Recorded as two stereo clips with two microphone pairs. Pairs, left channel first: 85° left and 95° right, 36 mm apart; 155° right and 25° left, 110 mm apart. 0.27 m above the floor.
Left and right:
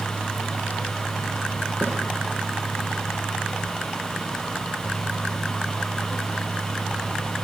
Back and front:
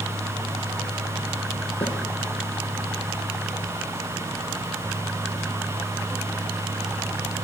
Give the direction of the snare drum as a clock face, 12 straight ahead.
4 o'clock.